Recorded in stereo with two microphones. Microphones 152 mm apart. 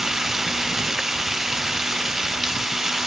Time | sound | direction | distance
0.0 | running water | 5° right (ahead or behind) | ?